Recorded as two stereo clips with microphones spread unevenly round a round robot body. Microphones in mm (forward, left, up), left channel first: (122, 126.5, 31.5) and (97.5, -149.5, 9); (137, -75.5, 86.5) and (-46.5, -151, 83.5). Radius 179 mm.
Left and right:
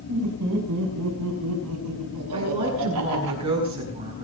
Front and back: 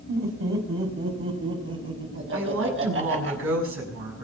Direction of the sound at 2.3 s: 170° right.